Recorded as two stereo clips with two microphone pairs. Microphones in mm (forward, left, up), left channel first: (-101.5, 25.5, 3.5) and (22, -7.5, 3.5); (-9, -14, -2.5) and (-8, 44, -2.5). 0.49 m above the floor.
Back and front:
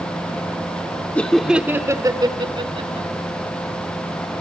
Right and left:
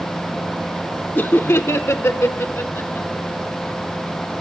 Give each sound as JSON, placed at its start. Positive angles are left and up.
{"t": 1.1, "sound": "laughter", "azimuth_deg": -125, "distance_m": 1.0}